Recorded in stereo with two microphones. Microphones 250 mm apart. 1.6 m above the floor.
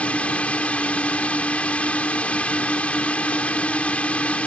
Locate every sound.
0.0 s a drone: 5° left (ahead or behind)